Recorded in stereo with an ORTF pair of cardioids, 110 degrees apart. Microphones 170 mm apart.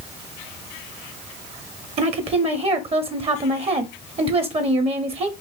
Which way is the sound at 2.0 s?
35° right.